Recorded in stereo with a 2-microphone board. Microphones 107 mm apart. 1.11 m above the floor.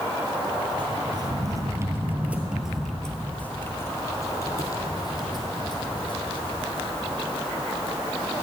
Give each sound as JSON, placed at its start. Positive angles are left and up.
{"t": 0.8, "sound": "footsteps", "side_deg": -45, "distance_m": 1.6}